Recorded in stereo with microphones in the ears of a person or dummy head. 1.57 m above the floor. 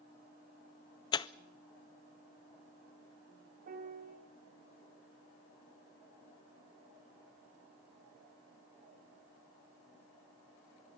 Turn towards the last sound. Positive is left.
turn(degrees=-45)  # may be behind; listen again after turning